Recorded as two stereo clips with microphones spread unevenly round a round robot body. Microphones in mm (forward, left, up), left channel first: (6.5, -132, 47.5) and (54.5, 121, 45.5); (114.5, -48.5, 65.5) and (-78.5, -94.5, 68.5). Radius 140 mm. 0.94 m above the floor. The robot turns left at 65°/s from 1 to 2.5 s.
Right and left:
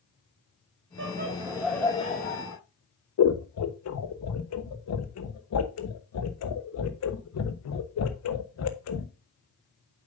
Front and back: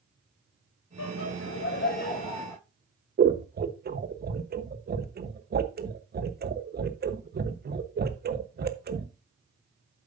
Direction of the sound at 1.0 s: 35° left.